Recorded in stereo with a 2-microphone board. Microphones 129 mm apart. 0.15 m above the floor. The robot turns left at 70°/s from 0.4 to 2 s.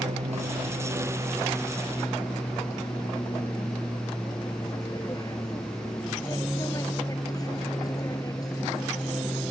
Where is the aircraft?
100° right; by 9.5 s 150° left.